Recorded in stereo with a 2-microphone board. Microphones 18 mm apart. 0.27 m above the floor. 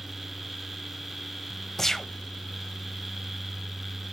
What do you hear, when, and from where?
1.8 s a gunshot: 25° left (ahead or behind), 0.5 m